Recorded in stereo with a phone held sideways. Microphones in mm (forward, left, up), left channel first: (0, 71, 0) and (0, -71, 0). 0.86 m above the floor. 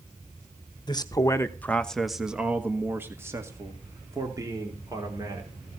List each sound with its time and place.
0.9 s a man speaking: 30° left (ahead or behind), 1.1 m; by 5.5 s 25° right (ahead or behind), 3.5 m